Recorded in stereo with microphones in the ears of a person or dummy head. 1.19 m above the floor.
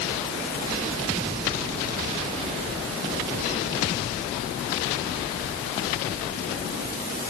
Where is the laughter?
No laughter in this recording.